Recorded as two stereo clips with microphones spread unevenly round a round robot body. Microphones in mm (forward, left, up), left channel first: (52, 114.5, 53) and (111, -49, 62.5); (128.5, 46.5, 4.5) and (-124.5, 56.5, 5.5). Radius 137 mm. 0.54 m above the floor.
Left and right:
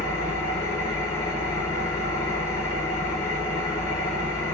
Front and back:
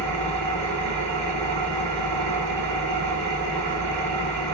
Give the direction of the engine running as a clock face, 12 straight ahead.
6 o'clock.